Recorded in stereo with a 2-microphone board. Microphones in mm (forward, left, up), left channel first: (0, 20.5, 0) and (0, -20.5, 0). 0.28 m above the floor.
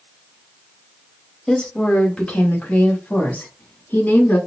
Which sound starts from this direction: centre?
A woman speaking, at 1.5 s.